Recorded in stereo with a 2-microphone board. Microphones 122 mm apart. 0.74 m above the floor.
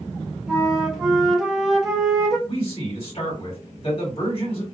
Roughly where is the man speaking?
Left.